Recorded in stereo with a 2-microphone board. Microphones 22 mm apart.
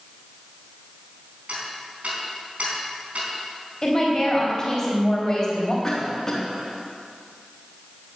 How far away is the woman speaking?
About 4 m.